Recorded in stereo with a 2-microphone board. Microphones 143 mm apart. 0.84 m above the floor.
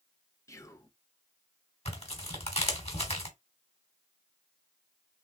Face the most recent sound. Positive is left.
turn(degrees=45)  # may be behind; listen again after turning